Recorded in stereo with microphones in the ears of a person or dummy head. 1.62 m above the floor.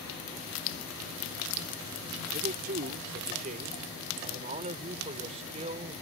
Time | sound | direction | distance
2.3 | a man speaking | 50° right (ahead or behind) | ?